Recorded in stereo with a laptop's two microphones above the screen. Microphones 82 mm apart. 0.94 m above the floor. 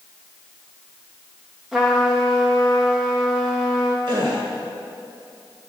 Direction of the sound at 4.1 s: 70° right (ahead or behind).